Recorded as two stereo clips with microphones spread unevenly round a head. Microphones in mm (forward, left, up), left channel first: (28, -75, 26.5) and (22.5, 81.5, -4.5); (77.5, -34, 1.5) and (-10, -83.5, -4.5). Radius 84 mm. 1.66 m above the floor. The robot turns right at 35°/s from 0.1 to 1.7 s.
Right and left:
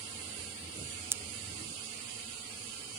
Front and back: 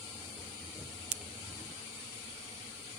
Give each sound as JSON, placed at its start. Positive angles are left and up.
{"t": 1.1, "sound": "a pop", "azimuth_deg": 170}